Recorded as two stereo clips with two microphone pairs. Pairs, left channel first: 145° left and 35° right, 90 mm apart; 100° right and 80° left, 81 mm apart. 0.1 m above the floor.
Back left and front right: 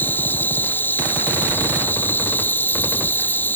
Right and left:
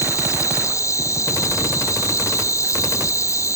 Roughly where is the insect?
Behind right.